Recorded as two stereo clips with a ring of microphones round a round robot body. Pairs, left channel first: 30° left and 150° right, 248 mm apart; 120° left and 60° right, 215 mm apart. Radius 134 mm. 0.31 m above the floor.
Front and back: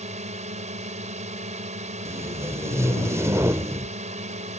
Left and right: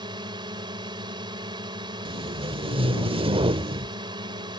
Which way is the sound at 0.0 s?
115° right.